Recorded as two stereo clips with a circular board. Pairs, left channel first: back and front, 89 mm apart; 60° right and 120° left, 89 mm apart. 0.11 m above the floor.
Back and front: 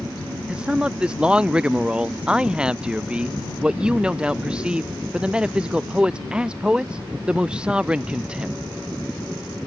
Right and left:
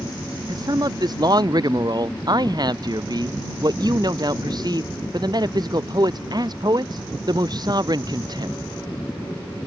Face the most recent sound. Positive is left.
turn(degrees=80)